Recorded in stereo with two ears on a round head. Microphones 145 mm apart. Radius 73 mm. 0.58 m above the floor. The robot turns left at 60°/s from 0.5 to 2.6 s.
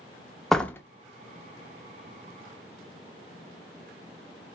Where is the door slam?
Centre (ahead or behind), 0.6 m; by 0.8 s 20° left (ahead or behind), 0.6 m.